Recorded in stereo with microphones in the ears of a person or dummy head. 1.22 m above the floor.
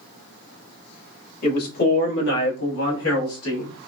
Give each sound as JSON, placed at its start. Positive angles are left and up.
{"t": 1.4, "sound": "a man speaking", "side_deg": 40, "distance_m": 1.8}